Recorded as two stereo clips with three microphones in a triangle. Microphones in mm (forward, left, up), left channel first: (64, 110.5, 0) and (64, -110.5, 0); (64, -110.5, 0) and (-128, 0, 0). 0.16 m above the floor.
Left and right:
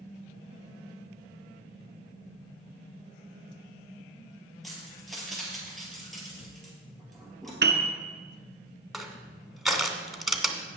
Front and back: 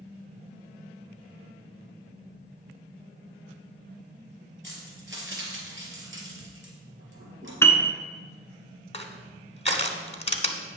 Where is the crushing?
Straight ahead, 0.9 m.